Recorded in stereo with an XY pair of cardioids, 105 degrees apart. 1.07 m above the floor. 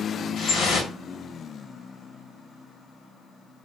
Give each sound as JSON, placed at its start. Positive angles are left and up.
{"t": 0.4, "sound": "dripping", "azimuth_deg": 65, "distance_m": 1.1}